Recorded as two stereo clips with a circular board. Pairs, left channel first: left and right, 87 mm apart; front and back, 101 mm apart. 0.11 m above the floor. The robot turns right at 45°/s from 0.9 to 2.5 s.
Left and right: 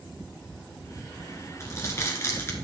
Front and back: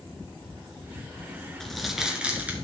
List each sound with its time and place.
1.6 s crumpling: 80° left, 1.8 m; by 2.5 s 120° left, 1.8 m